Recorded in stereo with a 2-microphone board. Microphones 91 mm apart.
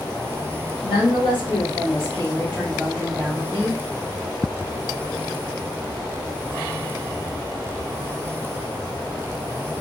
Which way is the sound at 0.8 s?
75° left (ahead or behind).